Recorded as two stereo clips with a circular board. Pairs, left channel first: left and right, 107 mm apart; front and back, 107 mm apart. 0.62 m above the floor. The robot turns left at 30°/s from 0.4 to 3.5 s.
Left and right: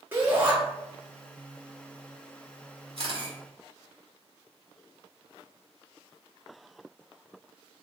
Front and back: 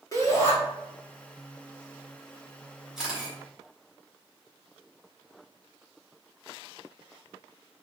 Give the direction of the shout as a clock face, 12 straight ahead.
1 o'clock.